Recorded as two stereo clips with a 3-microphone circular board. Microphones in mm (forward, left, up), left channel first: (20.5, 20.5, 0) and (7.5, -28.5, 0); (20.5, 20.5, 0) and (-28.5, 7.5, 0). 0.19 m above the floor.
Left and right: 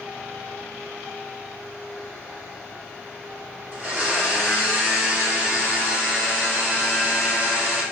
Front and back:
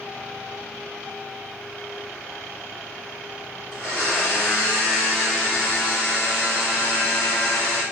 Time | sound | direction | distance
3.7 | a blender | 90° right | 1.9 m